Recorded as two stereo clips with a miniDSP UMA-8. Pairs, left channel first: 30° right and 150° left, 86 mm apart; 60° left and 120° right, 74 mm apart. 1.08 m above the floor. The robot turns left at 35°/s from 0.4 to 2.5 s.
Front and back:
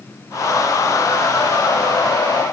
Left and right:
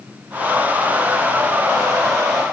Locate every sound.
Only background noise.